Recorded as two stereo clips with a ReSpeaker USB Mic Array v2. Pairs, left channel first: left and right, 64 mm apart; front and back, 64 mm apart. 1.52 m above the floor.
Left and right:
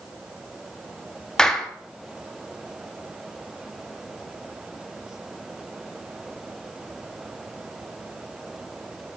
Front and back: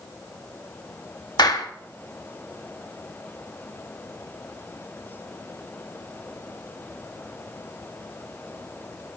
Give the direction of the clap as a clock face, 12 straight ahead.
12 o'clock.